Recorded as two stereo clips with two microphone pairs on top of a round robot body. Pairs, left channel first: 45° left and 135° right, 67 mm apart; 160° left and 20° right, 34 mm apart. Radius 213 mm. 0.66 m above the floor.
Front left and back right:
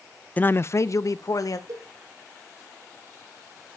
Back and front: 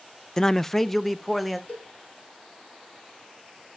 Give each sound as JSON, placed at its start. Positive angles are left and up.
{"t": 0.4, "sound": "a man speaking", "azimuth_deg": 95, "distance_m": 0.5}
{"t": 1.7, "sound": "a cowbell", "azimuth_deg": -165, "distance_m": 5.5}